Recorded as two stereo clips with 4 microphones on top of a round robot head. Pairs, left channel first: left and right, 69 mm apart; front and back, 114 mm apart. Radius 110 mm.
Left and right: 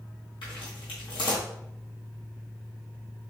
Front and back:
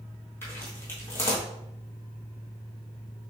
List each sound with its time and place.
0.4 s footsteps: 70° left, 1.3 m